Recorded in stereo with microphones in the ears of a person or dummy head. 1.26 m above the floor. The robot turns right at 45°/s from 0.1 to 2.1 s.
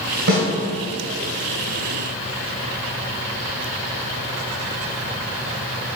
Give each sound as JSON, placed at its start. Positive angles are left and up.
{"t": 0.3, "sound": "a snare drum", "side_deg": -55, "distance_m": 2.5}